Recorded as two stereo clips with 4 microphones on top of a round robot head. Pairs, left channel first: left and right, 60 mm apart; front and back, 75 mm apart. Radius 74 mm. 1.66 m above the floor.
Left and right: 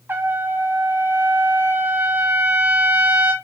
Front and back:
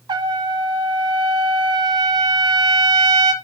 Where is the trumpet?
150° right, 0.8 m.